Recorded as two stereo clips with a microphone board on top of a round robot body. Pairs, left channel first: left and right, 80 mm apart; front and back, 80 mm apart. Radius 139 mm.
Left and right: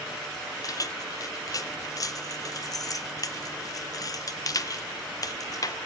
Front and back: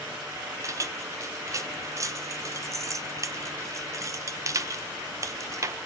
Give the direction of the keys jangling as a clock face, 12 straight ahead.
8 o'clock.